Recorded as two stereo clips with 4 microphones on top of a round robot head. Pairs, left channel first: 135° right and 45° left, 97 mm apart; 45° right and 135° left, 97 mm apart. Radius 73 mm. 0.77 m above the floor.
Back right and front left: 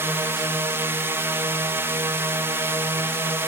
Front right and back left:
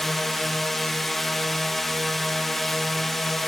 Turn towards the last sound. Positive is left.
turn(degrees=40)